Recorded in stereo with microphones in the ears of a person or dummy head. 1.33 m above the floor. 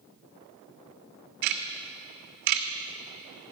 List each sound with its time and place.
1.4 s ticking: 55° right (ahead or behind), 1.5 m